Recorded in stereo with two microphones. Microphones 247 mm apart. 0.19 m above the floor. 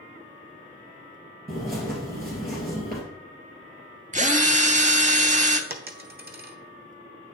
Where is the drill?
30° right (ahead or behind), 0.6 m.